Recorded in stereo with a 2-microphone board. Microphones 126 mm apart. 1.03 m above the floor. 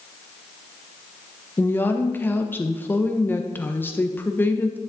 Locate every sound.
1.6 s a woman speaking: 15° left (ahead or behind), 0.9 m